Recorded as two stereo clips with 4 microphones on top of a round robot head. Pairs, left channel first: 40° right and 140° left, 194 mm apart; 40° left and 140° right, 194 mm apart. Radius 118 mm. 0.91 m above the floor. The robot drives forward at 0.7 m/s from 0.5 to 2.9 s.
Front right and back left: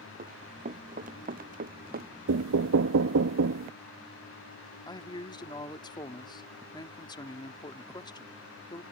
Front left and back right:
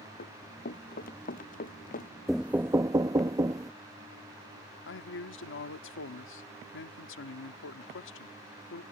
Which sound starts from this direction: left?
Running footsteps, at 0.2 s.